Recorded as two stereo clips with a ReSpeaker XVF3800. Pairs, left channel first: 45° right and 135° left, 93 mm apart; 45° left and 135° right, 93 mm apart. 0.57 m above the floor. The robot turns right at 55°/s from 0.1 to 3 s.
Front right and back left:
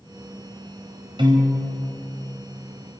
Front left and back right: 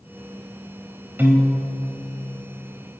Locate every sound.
1.2 s a piano: 155° left, 3 m; by 1.7 s 175° right, 3 m